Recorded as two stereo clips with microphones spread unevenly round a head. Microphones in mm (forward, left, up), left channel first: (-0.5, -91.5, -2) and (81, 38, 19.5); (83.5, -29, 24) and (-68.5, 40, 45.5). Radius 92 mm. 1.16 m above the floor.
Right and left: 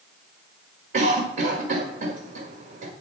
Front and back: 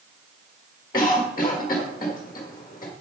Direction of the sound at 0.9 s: 40° left.